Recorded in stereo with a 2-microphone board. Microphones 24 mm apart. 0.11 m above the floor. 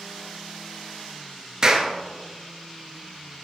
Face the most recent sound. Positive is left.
turn(degrees=-30)  # may be behind; listen again after turning